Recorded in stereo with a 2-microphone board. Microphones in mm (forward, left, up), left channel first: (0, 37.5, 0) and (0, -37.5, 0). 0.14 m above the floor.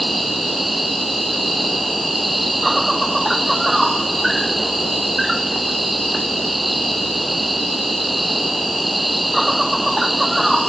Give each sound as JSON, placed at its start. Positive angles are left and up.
{"t": 0.0, "sound": "an insect", "side_deg": 0}